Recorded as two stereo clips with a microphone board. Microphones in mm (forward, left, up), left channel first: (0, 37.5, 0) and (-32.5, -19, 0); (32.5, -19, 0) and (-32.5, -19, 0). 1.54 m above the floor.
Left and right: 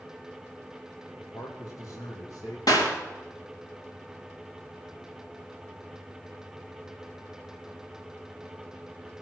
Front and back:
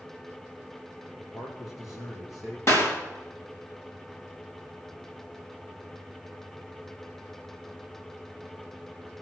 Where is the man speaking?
35° left, 1.6 m; by 2.6 s 40° left, 2.5 m.